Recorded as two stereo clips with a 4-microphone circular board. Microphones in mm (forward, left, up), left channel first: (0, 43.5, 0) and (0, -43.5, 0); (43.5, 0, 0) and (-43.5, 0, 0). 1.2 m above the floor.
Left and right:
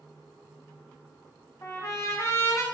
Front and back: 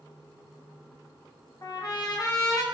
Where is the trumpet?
40° left, 0.6 m.